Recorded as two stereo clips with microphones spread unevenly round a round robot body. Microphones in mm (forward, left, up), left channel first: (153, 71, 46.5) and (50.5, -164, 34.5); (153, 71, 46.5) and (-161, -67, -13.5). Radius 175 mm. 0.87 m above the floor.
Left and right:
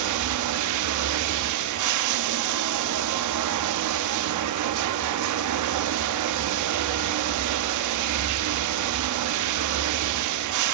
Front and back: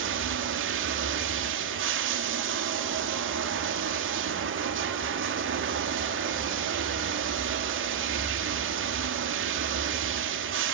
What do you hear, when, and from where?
0.0 s running water: 95° right, 0.8 m